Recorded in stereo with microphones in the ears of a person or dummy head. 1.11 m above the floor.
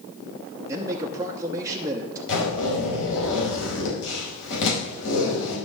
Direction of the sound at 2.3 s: 65° left (ahead or behind).